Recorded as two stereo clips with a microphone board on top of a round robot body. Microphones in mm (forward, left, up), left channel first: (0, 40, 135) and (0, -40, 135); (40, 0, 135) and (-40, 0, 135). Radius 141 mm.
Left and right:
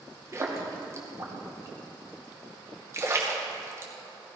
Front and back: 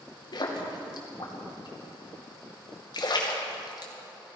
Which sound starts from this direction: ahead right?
A splash, at 0.3 s.